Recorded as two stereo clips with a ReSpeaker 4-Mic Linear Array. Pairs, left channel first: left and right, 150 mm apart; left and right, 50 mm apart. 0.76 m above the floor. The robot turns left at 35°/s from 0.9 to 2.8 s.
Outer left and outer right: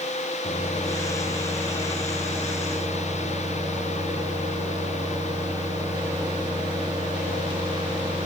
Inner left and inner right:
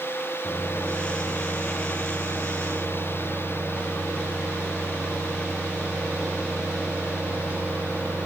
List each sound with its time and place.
0.4 s a microwave: 35° left, 0.8 m; by 8.3 s 30° right, 0.8 m